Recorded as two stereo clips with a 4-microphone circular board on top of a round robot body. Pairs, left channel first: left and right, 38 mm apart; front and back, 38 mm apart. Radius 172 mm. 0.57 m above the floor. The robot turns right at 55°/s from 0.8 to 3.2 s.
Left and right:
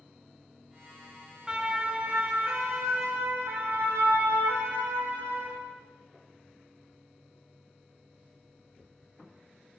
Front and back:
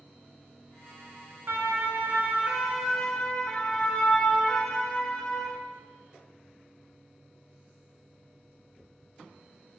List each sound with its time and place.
1.5 s a siren: 170° right, 4 m; by 5.6 s 90° right, 8.5 m